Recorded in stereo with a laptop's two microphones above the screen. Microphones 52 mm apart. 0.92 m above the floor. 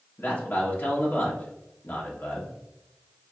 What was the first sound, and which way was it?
A man speaking, 40° left (ahead or behind).